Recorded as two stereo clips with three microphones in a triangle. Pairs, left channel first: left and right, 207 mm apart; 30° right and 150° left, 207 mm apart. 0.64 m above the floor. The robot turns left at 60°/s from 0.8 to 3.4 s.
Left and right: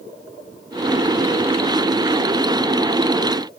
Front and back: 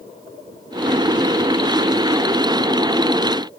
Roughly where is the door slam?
No door slam in this recording.